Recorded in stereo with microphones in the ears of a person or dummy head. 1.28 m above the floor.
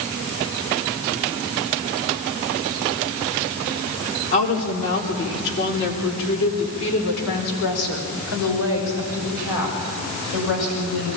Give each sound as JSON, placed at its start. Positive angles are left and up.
{"t": 4.3, "sound": "a woman speaking", "side_deg": 50, "distance_m": 4.0}